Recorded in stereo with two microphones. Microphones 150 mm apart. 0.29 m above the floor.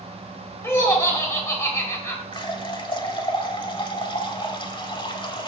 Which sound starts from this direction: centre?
Laughter, at 0.6 s.